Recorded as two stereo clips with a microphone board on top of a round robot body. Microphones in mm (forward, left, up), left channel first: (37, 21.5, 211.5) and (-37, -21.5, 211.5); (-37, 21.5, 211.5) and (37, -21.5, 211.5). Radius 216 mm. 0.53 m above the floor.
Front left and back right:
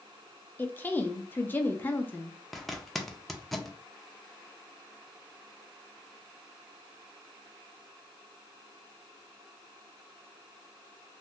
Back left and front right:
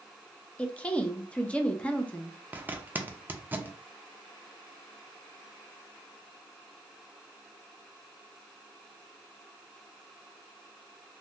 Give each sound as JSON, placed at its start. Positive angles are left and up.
{"t": 0.6, "sound": "a woman speaking", "azimuth_deg": 85, "distance_m": 0.8}
{"t": 2.5, "sound": "a zipper", "azimuth_deg": -55, "distance_m": 0.9}